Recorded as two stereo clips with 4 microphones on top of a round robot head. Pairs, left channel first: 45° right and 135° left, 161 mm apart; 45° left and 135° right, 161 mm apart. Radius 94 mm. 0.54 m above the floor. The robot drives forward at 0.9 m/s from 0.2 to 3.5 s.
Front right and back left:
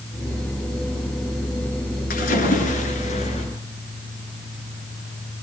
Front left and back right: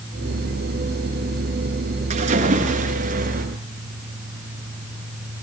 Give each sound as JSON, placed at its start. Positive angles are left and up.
{"t": 2.1, "sound": "a splash", "azimuth_deg": -85, "distance_m": 6.5}